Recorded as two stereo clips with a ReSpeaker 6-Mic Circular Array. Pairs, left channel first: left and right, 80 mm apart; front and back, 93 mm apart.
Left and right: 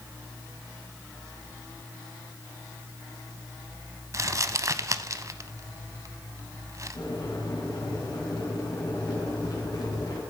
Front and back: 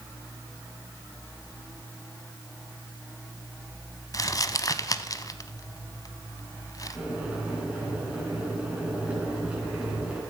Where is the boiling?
105° left, 3.5 m.